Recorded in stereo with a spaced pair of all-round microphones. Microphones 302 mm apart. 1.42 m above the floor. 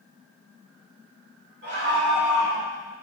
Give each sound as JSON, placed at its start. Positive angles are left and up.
{"t": 1.6, "sound": "a scream", "side_deg": -35, "distance_m": 3.0}